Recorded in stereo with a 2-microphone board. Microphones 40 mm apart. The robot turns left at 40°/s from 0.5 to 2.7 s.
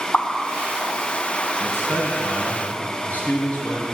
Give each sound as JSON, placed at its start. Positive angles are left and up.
{"t": 0.1, "sound": "a pop", "side_deg": 45, "distance_m": 1.3}
{"t": 1.6, "sound": "a man speaking", "azimuth_deg": 90, "distance_m": 4.0}